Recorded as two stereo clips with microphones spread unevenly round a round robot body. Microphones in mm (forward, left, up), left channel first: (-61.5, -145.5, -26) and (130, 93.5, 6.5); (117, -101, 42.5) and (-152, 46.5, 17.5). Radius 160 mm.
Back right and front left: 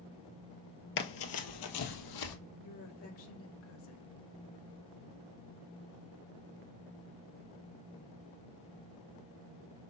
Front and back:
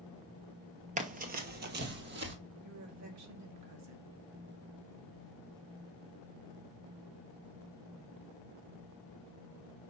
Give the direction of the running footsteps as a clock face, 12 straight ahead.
5 o'clock.